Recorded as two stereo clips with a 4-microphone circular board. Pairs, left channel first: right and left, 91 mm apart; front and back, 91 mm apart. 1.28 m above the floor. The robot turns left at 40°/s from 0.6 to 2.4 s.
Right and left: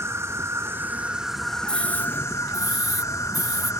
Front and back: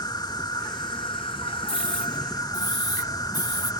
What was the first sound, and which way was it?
An insect, 35° left.